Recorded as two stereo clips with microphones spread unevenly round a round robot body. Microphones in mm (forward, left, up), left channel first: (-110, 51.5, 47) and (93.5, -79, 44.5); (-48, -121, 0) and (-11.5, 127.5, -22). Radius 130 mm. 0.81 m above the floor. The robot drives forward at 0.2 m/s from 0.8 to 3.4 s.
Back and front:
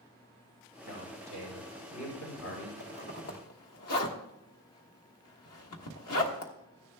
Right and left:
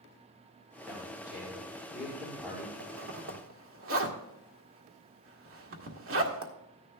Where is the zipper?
115° left, 1.4 m.